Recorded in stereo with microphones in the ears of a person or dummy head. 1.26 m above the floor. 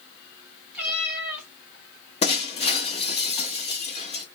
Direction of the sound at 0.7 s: 5° right (ahead or behind).